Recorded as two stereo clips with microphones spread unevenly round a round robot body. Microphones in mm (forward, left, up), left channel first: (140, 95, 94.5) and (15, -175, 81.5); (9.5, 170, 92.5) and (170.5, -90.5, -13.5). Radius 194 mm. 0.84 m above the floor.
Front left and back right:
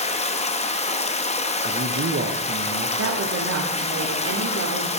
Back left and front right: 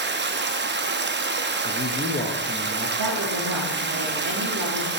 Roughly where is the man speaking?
Behind right.